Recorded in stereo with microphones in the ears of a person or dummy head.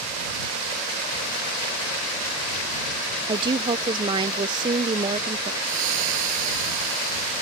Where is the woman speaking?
30° right (ahead or behind).